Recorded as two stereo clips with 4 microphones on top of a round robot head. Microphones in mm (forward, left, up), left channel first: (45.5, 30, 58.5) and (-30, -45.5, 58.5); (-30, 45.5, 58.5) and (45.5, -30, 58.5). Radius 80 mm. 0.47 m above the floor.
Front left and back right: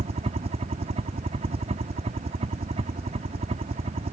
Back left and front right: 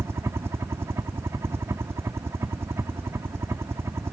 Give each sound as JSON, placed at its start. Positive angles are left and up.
{"t": 0.0, "sound": "a helicopter", "azimuth_deg": -110}